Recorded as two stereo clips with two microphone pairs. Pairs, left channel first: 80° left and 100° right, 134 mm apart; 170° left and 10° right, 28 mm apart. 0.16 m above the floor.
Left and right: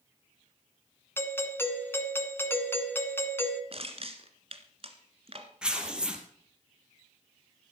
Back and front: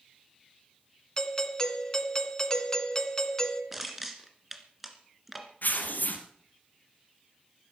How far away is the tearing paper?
About 2.5 m.